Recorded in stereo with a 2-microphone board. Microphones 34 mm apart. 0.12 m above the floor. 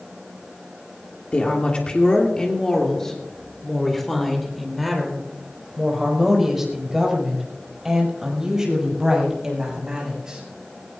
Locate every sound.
1.3 s a woman speaking: 40° left (ahead or behind), 3 m; by 10.4 s 20° right (ahead or behind), 8 m